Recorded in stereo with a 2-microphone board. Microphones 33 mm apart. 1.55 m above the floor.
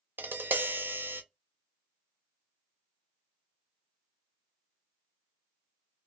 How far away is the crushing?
No crushing in this recording.